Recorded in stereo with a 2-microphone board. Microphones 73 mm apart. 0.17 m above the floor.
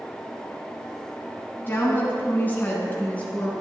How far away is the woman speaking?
About 1.1 m.